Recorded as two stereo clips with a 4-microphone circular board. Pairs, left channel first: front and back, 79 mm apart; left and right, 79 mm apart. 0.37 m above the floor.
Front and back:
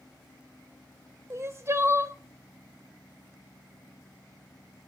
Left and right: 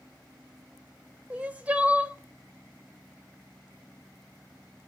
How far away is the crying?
About 1.8 m.